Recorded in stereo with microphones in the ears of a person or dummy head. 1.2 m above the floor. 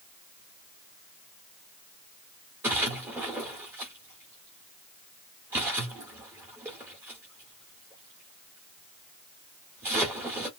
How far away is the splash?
About 0.6 m.